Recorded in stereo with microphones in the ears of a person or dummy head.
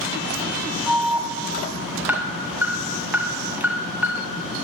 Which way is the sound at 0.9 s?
Centre (ahead or behind).